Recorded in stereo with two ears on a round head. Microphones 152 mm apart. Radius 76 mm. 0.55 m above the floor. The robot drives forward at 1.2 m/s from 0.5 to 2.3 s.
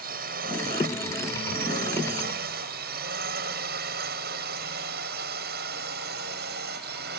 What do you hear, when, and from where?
0.0 s a drone: 55° right (ahead or behind); by 7.2 s 60° right (ahead or behind)